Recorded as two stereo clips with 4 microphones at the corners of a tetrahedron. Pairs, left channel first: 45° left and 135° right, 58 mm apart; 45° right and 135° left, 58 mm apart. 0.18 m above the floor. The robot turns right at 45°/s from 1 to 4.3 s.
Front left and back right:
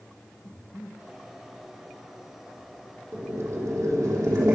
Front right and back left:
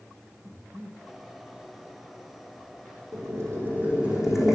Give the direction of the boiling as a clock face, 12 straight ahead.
6 o'clock.